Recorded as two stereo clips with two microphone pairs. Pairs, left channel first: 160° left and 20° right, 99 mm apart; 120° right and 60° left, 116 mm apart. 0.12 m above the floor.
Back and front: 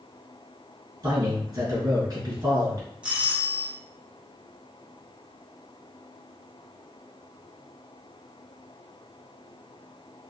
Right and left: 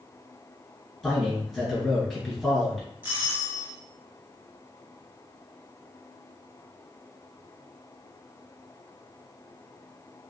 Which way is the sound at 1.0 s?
30° right.